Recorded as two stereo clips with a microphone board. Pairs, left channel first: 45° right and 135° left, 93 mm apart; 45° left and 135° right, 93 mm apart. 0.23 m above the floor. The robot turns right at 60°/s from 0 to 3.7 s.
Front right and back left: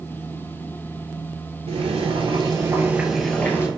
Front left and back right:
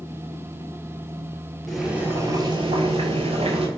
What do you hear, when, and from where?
1.7 s boiling: 130° left, 0.7 m; by 3.7 s 110° right, 0.7 m